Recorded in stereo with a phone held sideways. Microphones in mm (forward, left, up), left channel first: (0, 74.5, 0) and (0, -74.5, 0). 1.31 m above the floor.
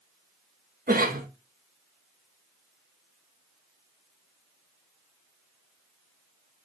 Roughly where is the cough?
Right.